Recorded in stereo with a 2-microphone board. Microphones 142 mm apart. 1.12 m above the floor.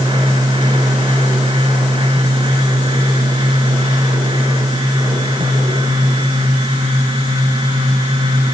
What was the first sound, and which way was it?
Only background noise.